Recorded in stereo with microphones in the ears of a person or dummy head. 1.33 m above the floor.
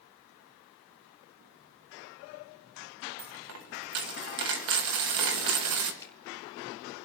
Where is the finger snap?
15° left (ahead or behind), 3 m.